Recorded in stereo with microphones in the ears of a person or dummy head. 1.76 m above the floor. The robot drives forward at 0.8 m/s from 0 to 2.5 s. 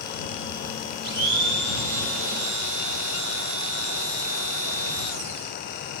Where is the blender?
50° right (ahead or behind), 1.9 m; by 5.5 s 65° right (ahead or behind), 1.6 m.